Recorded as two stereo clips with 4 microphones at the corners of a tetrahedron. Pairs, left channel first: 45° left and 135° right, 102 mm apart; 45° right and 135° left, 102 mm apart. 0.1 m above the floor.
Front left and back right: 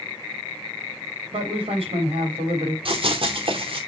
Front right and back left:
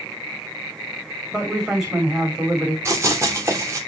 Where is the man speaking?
140° right, 4.5 m.